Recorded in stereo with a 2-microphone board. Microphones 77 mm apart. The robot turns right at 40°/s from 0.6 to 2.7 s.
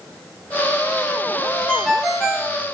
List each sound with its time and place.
1.7 s a ringtone: 165° left, 0.9 m; by 2.5 s 160° right, 0.9 m